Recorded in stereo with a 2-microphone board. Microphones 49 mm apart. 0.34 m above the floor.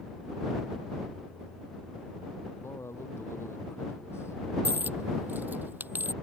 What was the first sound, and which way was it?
A man speaking, 60° left (ahead or behind).